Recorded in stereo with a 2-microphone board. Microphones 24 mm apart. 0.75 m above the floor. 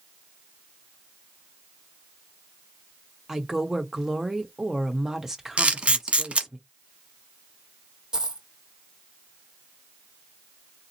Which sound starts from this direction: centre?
A woman speaking, at 3.3 s.